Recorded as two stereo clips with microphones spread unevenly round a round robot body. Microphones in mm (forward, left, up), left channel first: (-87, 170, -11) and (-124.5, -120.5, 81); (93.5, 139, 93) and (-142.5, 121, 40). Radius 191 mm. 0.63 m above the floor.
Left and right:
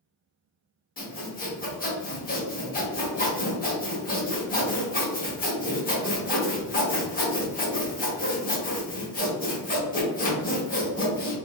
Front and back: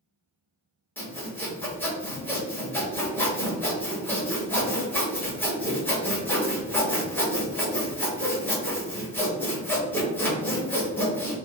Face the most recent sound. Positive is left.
turn(degrees=95)